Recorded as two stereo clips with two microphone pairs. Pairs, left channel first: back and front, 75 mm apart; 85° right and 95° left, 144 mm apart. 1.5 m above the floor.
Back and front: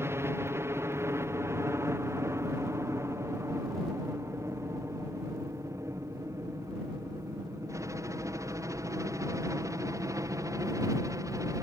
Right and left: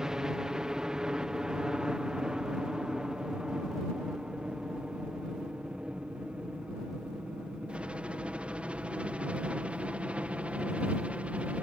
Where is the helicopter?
15° left; by 11.6 s 20° left.